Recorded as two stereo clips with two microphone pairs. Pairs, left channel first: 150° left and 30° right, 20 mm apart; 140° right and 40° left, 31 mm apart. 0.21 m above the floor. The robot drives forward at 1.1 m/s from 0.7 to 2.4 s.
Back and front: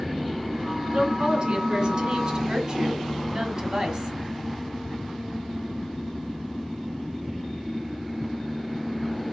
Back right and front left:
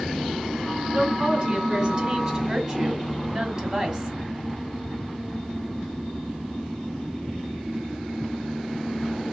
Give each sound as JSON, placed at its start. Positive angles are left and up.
{"t": 0.9, "sound": "a woman speaking", "azimuth_deg": -5, "distance_m": 3.0}